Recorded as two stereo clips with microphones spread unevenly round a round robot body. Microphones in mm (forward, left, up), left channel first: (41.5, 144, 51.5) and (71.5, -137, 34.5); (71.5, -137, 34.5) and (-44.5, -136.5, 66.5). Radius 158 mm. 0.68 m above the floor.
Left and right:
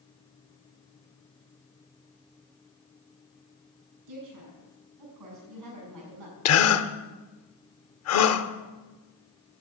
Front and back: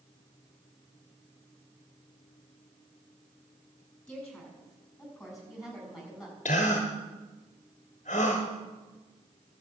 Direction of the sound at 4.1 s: 85° right.